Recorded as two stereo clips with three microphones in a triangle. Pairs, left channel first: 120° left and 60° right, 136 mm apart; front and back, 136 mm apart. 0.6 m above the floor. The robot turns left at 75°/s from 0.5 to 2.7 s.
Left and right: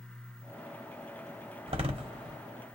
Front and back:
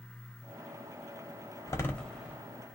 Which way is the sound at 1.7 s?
55° right.